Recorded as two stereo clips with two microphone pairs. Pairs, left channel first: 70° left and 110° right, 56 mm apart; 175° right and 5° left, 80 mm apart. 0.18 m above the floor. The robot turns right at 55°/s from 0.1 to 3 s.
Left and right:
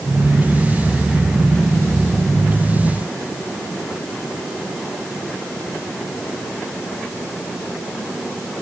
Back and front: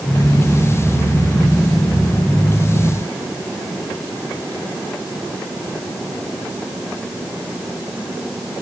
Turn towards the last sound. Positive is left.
No sound to turn to.